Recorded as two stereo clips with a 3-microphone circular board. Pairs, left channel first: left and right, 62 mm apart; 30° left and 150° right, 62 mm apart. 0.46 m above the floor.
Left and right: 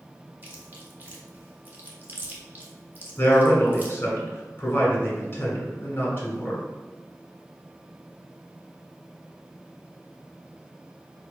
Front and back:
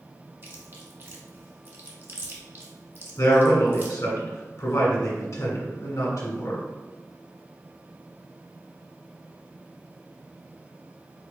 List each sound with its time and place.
0.4 s chewing: 130° right, 0.9 m
3.2 s a man speaking: 40° left, 1.6 m